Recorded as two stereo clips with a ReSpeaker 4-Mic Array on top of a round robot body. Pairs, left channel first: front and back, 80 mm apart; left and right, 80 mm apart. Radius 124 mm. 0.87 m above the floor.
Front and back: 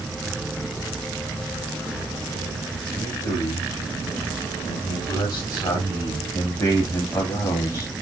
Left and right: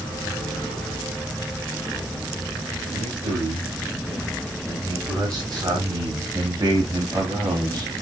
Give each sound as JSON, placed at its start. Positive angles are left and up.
{"t": 2.9, "sound": "a man speaking", "azimuth_deg": -35, "distance_m": 5.0}